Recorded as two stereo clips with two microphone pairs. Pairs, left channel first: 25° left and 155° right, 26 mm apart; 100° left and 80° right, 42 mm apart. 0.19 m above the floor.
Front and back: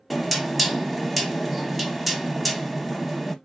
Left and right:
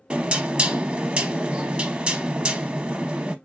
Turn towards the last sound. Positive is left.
turn(degrees=-55)